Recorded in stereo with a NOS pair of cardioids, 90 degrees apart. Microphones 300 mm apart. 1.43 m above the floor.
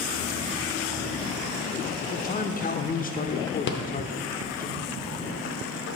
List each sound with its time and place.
2.0 s a man speaking: 30° left, 0.7 m
3.7 s a rattle: 40° left, 0.7 m